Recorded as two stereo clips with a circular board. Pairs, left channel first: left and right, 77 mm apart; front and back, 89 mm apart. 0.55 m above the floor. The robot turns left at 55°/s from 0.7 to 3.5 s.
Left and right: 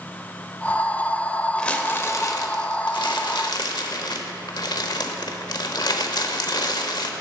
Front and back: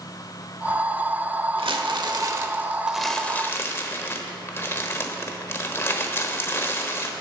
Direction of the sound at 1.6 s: 170° left.